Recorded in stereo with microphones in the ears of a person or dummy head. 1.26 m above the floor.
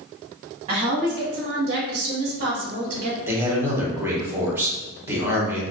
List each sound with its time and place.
0.7 s a woman speaking: 25° right (ahead or behind), 0.7 m; by 3.2 s 40° right (ahead or behind), 1.0 m
3.3 s a man speaking: 15° right (ahead or behind), 1.0 m